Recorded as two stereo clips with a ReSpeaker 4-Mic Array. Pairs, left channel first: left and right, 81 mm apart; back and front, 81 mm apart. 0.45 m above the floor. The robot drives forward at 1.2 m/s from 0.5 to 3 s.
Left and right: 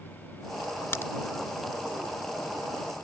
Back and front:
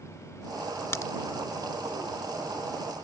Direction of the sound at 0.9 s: 135° left.